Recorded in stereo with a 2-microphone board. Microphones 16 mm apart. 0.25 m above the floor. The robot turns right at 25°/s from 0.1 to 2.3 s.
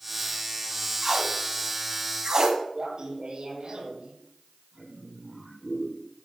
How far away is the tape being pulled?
About 2 m.